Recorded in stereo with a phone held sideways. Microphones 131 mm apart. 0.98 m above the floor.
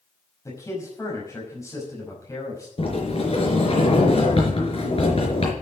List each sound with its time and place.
0.5 s a man speaking: 25° left (ahead or behind), 5.5 m
2.8 s a sliding door: 50° left (ahead or behind), 4 m